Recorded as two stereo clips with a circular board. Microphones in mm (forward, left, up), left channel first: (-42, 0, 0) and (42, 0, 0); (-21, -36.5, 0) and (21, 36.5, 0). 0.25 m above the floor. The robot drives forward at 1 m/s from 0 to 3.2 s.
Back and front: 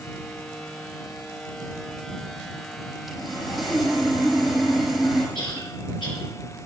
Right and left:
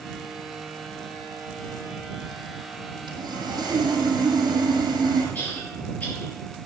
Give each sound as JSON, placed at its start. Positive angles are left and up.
{"t": 3.1, "sound": "sawing", "azimuth_deg": 90, "distance_m": 5.5}
{"t": 5.3, "sound": "a cough", "azimuth_deg": 170, "distance_m": 6.5}